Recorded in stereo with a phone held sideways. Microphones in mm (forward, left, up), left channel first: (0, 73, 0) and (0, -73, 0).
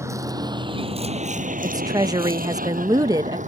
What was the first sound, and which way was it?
A vehicle, 20° right (ahead or behind).